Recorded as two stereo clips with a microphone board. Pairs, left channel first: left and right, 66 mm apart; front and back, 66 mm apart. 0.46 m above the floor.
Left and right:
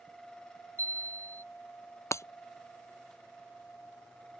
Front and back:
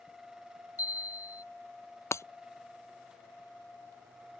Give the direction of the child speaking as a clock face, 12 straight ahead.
I don't hear a child speaking.